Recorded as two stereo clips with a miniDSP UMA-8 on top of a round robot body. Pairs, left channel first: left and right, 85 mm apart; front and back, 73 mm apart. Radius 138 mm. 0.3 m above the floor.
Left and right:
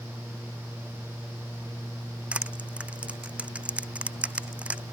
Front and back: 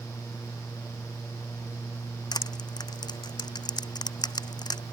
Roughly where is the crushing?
Ahead.